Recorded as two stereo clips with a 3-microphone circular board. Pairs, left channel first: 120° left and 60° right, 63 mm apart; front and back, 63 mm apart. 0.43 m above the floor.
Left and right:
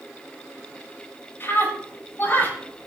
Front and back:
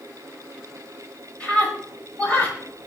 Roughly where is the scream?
Left.